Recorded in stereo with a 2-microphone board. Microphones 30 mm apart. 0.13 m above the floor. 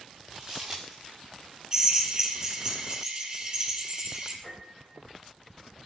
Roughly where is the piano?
Centre.